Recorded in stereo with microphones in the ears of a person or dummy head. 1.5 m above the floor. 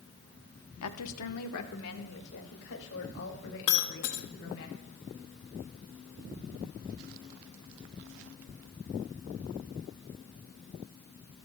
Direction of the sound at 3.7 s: 60° left (ahead or behind).